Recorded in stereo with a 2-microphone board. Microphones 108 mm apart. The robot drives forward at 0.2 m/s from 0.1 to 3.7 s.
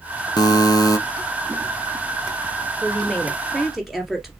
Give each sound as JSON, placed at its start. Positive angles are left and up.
{"t": 0.4, "sound": "a buzzer", "side_deg": 40, "distance_m": 0.7}
{"t": 2.8, "sound": "a woman speaking", "side_deg": 0, "distance_m": 2.0}